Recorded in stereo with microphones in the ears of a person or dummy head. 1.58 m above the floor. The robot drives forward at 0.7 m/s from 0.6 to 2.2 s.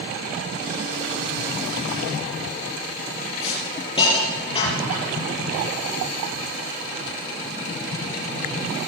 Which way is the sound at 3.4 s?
30° left (ahead or behind).